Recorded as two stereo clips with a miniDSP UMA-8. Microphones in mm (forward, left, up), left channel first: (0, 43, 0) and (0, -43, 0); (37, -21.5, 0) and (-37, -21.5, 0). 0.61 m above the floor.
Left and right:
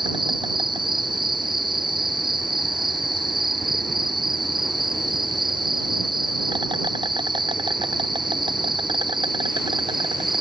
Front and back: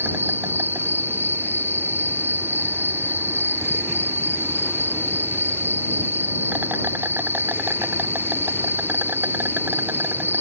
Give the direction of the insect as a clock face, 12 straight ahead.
4 o'clock.